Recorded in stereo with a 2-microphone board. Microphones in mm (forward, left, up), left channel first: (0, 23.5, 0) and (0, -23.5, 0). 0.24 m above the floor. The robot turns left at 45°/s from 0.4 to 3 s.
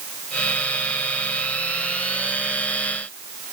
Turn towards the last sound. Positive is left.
No sound to turn to.